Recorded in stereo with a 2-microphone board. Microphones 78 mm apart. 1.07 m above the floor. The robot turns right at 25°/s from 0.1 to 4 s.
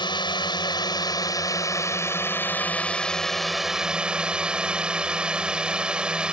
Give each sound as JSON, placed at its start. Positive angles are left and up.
{"t": 0.0, "sound": "a drone", "azimuth_deg": 95}